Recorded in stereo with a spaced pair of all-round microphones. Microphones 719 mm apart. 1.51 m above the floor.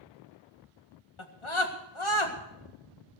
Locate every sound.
1.2 s a scream: 40° left (ahead or behind), 1.8 m